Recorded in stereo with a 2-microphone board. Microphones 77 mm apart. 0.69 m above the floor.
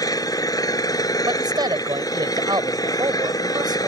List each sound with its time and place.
0.0 s an engine running: 60° left (ahead or behind)
1.3 s a man speaking: 75° right (ahead or behind)